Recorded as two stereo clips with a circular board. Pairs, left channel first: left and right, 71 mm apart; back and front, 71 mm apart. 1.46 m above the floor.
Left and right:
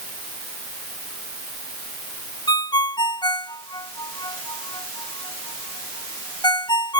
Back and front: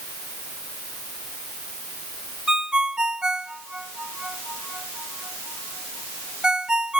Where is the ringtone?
80° left.